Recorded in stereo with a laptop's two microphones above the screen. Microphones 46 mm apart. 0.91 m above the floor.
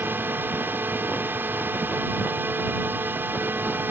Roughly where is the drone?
Right.